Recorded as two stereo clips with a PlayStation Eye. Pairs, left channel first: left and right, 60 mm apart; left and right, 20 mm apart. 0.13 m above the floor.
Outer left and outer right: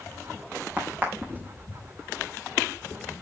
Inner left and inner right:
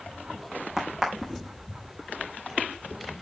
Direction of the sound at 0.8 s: 25° right (ahead or behind).